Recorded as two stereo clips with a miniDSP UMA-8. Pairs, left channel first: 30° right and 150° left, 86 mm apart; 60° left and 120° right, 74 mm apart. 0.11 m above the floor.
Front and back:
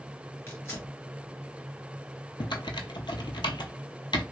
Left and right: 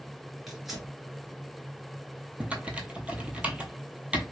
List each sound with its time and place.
0.5 s tearing paper: 35° right, 1.9 m
2.4 s typing on a keyboard: 50° right, 0.6 m